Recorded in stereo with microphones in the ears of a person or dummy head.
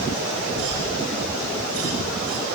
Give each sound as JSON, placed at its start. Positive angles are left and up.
{"t": 0.6, "sound": "a cough", "side_deg": -75, "distance_m": 6.0}